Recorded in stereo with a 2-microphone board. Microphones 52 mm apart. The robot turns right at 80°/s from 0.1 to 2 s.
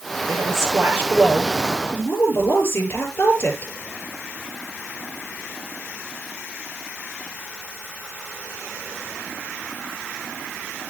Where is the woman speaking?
95° right, 7.5 m; by 3.7 s 45° left, 7.5 m.